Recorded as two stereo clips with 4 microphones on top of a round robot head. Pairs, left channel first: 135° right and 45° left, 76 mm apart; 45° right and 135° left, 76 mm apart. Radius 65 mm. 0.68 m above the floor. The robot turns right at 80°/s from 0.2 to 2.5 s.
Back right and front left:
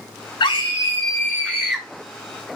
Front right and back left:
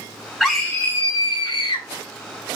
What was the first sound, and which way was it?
A scream, 140° right.